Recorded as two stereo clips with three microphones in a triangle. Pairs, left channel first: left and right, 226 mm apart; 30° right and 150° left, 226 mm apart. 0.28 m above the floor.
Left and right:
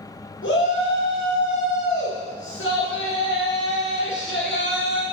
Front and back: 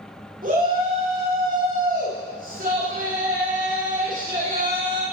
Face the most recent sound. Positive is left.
turn(degrees=100)